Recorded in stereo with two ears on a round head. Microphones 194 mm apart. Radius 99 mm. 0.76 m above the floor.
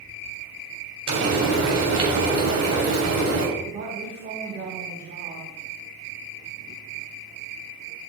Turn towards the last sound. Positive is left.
turn(degrees=-60)  # may be behind; listen again after turning